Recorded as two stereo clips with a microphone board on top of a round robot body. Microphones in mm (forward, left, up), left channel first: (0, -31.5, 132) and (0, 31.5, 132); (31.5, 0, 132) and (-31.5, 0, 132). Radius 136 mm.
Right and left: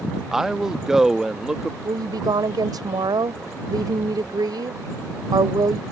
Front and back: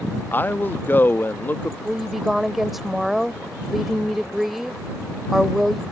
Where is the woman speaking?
95° left.